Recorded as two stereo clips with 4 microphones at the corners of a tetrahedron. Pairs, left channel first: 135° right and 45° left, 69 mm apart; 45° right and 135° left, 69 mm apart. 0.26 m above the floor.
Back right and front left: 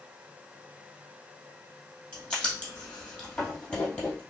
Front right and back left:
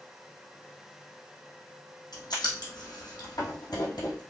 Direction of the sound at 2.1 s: 60° right.